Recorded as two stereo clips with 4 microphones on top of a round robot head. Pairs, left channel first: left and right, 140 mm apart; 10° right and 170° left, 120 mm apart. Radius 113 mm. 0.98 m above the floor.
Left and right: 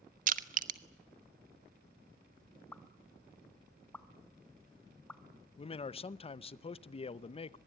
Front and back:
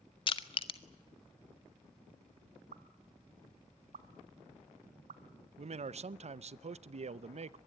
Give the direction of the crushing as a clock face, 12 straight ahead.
2 o'clock.